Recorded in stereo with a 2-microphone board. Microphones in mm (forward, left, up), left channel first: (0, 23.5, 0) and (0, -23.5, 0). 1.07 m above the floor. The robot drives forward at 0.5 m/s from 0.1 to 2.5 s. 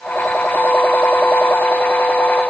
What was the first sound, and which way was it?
Only background noise.